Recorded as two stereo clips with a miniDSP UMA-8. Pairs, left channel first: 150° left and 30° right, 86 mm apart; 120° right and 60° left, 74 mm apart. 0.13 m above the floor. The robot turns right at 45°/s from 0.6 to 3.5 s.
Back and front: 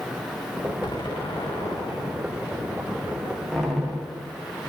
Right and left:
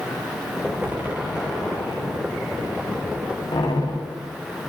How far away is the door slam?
About 9 m.